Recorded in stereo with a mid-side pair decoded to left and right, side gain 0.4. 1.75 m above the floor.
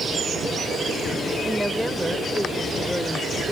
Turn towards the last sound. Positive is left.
turn(degrees=10)